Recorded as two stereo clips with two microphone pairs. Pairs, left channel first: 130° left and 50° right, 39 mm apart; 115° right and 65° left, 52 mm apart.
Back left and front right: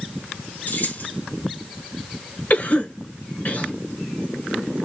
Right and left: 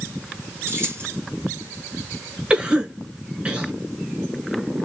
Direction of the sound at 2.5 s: 125° left.